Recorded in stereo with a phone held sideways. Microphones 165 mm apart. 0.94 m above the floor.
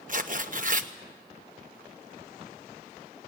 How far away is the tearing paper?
About 1.1 m.